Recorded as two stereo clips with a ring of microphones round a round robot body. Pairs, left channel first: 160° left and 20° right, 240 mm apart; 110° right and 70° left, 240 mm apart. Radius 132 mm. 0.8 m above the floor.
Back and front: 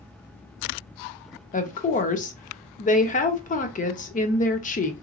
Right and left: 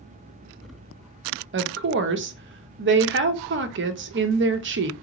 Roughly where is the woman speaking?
Left.